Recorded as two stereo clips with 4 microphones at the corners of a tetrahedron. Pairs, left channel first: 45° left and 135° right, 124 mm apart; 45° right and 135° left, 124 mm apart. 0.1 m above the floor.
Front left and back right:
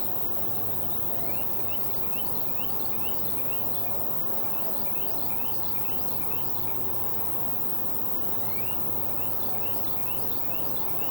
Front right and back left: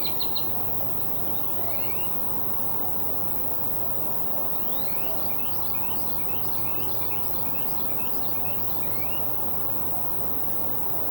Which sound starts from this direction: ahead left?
An insect, at 0.0 s.